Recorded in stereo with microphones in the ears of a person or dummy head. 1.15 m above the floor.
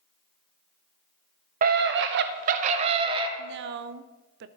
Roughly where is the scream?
Right.